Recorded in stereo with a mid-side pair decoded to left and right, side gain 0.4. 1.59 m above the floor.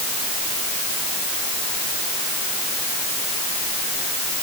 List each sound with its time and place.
Only background noise.